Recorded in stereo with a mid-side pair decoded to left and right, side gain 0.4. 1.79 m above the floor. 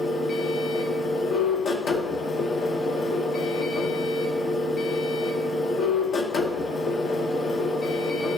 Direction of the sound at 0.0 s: 70° left.